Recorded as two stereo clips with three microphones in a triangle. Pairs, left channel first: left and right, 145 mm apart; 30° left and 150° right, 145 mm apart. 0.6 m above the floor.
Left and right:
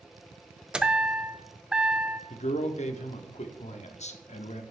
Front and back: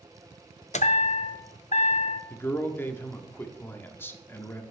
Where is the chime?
5° right, 0.6 m.